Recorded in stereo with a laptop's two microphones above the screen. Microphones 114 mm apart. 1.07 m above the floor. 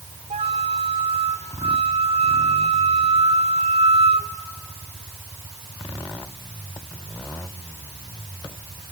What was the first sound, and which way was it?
A flute, 80° right.